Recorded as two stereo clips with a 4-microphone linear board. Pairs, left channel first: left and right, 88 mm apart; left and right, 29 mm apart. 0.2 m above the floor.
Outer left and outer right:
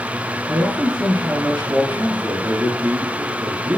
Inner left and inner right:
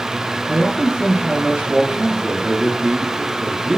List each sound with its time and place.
0.5 s a man speaking: 50° right (ahead or behind), 3.5 m